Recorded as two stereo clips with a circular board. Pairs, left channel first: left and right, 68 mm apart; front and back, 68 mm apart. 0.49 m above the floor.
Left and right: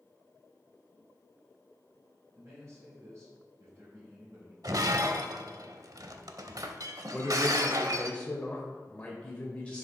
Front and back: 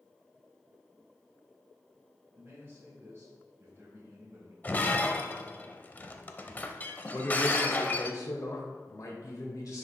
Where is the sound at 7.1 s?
20° left, 1.8 m.